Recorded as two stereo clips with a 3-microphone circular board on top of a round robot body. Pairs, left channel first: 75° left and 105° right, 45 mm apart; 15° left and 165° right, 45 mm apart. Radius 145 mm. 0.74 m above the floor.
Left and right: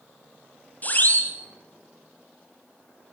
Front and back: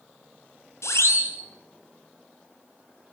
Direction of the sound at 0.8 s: 20° left.